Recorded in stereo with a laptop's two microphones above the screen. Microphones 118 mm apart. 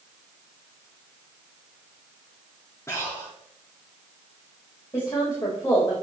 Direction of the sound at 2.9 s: 25° left (ahead or behind).